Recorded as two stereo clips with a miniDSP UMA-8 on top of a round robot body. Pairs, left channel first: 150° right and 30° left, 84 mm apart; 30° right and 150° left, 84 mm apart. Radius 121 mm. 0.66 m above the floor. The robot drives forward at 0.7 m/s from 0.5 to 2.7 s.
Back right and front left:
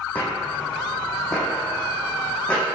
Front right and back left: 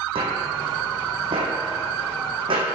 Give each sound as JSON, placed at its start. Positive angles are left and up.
{"t": 0.1, "sound": "footsteps", "azimuth_deg": 135, "distance_m": 1.7}